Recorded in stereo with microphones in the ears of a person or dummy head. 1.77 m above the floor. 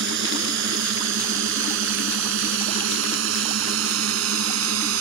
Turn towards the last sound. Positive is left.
turn(degrees=-85)